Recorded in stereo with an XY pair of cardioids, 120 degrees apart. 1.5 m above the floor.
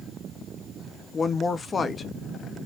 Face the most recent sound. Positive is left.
turn(degrees=35)